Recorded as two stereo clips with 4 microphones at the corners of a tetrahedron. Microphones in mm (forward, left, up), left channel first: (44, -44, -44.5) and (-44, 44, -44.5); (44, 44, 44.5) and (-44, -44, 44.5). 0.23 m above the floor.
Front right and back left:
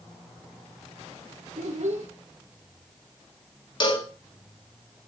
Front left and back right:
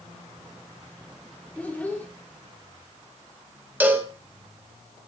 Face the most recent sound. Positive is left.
turn(degrees=-65)